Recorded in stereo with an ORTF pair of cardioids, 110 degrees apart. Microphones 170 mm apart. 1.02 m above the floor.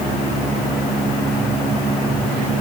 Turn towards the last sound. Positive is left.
No sound to turn to.